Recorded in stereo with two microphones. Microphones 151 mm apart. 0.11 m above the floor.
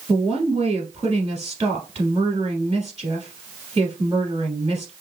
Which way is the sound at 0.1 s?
30° right (ahead or behind).